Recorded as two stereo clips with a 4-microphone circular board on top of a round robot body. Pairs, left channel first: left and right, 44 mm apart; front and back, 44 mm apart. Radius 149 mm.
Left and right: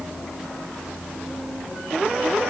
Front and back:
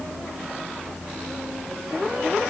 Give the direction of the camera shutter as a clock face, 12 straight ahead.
No camera shutter in this recording.